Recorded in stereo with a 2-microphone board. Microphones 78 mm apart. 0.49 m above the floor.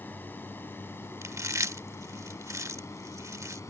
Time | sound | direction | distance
0.0 | a drone | 25° left (ahead or behind) | ?
1.2 | chewing | 40° right (ahead or behind) | ?